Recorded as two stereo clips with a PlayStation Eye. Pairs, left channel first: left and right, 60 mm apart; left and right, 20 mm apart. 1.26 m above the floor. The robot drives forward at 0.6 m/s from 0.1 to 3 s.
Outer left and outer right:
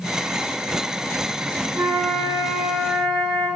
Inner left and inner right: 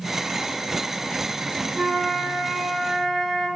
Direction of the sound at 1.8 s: 65° right (ahead or behind).